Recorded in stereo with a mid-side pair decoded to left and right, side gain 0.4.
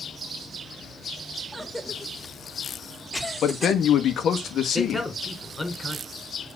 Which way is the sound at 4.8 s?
15° left.